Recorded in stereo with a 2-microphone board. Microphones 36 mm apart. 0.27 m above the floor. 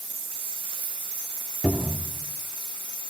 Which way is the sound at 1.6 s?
35° right (ahead or behind).